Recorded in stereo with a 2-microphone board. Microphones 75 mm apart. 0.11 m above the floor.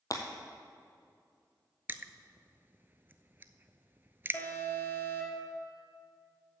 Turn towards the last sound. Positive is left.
turn(degrees=25)  # may be behind; listen again after turning